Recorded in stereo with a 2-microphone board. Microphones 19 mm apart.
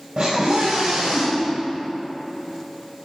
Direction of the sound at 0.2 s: 55° right (ahead or behind).